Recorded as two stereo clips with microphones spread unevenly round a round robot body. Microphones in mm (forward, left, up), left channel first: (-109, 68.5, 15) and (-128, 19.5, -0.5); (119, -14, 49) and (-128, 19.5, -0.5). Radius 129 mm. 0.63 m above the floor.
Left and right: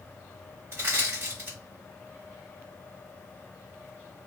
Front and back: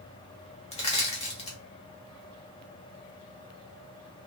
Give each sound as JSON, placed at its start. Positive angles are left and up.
{"t": 0.7, "sound": "crushing", "azimuth_deg": -80, "distance_m": 0.9}